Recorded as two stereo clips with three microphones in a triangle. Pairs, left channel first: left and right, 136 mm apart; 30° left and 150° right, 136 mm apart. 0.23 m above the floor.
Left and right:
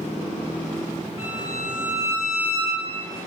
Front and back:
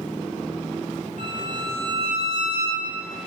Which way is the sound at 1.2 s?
160° right.